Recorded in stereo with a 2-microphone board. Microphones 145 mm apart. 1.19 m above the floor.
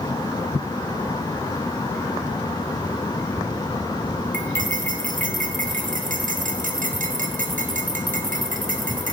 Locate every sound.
4.3 s cutlery clinking: 65° right (ahead or behind), 1.0 m